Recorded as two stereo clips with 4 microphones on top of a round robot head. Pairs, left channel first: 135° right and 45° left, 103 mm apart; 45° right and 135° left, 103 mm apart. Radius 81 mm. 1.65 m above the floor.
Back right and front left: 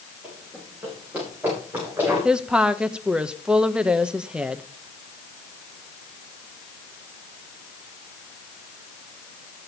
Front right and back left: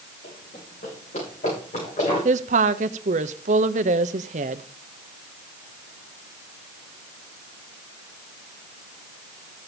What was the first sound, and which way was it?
Running footsteps, 40° right.